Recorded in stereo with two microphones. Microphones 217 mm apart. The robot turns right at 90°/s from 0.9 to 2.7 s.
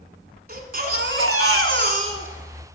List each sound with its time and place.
0.5 s a baby crying: 135° right, 1.0 m; by 2.7 s 25° left, 1.0 m